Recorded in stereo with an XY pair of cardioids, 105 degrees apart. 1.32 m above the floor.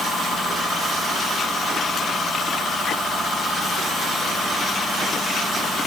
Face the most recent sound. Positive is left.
No sound to turn to.